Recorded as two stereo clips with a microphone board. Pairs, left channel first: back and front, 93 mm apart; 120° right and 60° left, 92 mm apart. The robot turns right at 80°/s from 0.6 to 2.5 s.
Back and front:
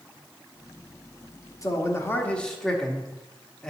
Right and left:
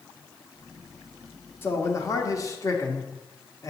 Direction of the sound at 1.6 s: 170° right.